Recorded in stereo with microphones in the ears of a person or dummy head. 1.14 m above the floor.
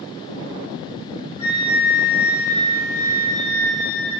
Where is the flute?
35° left (ahead or behind), 1.5 m.